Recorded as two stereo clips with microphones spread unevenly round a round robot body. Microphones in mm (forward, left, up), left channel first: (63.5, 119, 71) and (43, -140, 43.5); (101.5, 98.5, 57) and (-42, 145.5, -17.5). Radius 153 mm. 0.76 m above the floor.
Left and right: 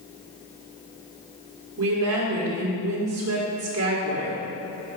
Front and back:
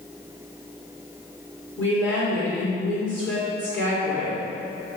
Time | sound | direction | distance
1.8 | a woman speaking | 70° right | 1.9 m